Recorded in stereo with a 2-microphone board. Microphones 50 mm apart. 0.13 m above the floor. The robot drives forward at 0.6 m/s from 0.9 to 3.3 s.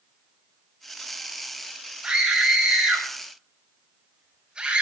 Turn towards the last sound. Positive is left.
turn(degrees=-20)  # may be behind; listen again after turning